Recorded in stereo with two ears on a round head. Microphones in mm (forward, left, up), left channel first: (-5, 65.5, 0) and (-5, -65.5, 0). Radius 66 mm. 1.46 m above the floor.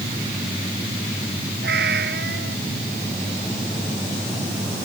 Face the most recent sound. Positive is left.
turn(degrees=-80)